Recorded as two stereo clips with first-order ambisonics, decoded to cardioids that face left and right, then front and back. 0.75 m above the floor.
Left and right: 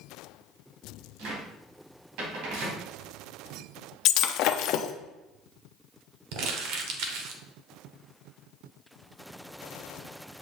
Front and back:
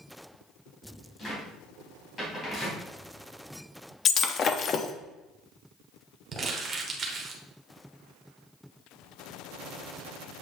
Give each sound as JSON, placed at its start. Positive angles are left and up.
{"t": 1.2, "sound": "a cupboard door", "azimuth_deg": -70, "distance_m": 3.0}
{"t": 4.0, "sound": "breaking glass", "azimuth_deg": 60, "distance_m": 0.6}
{"t": 6.3, "sound": "crumpling", "azimuth_deg": -115, "distance_m": 1.3}